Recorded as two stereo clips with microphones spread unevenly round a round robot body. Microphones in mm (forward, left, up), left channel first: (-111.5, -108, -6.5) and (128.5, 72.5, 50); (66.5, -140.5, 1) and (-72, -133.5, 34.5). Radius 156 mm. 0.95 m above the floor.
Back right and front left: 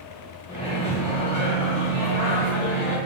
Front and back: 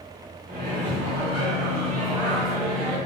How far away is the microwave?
About 0.9 m.